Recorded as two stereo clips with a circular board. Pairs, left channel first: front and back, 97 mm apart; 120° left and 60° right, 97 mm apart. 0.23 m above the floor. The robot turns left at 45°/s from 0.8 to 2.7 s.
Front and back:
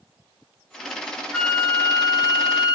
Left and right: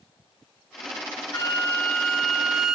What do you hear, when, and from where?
1.3 s a flute: 70° left, 1.1 m; by 2.8 s 10° left, 1.1 m